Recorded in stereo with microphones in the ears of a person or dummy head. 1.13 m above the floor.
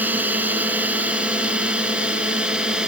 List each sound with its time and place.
0.0 s a drone: 10° right (ahead or behind); by 2.9 s 5° right (ahead or behind)